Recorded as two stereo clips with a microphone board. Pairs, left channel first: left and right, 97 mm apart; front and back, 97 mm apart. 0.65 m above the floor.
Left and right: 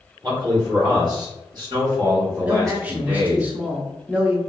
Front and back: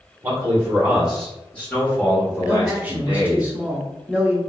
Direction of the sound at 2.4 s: 135° right.